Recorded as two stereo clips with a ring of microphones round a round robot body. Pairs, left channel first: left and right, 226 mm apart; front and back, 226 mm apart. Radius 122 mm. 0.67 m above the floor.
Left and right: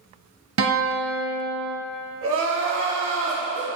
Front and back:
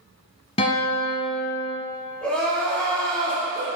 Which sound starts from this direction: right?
Crying, at 2.2 s.